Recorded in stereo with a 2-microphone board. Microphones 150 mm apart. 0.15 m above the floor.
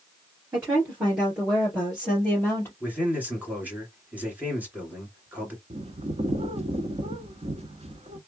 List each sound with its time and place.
0.5 s a woman speaking: 15° right (ahead or behind), 2.5 m; by 2.7 s 15° left (ahead or behind), 2.5 m
2.8 s a man speaking: 10° right (ahead or behind), 2.5 m
5.7 s a bird: 45° right (ahead or behind), 0.8 m